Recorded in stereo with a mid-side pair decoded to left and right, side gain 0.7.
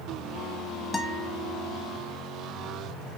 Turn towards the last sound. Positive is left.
turn(degrees=15)